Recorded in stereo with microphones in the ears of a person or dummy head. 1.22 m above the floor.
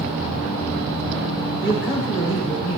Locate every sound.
1.6 s a man speaking: 60° left (ahead or behind), 6.5 m; by 2.8 s 70° left (ahead or behind), 7 m